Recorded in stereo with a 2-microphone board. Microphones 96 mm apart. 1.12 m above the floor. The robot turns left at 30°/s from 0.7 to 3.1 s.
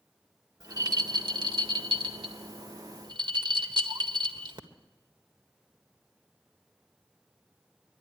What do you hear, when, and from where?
0.6 s a rattle: 45° right (ahead or behind), 1.5 m; by 4.6 s 55° right (ahead or behind), 1.5 m